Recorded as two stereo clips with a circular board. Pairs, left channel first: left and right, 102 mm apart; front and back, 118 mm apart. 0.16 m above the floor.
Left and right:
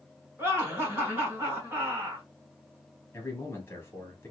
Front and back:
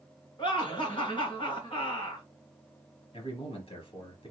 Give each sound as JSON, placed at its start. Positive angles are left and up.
{"t": 0.4, "sound": "laughter", "azimuth_deg": -30, "distance_m": 2.5}
{"t": 3.1, "sound": "a man speaking", "azimuth_deg": 25, "distance_m": 2.5}